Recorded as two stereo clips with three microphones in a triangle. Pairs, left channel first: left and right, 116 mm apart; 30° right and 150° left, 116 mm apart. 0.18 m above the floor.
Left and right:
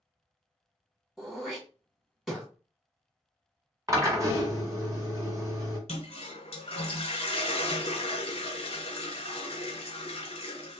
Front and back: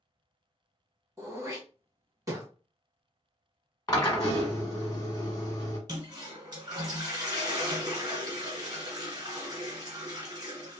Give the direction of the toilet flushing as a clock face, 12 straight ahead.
9 o'clock.